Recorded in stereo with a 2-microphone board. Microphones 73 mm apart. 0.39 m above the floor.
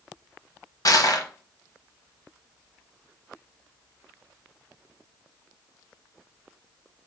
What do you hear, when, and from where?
0.8 s crushing: 60° left (ahead or behind), 0.8 m